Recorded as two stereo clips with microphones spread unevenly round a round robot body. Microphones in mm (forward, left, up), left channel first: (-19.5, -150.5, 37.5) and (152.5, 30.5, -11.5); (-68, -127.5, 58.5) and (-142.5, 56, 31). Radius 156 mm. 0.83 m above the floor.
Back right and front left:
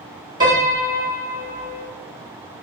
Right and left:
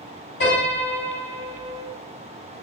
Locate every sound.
0.4 s a piano: 20° right, 2 m